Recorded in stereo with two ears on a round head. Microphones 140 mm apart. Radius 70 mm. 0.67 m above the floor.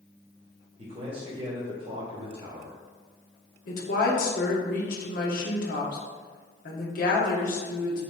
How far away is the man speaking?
About 1.2 m.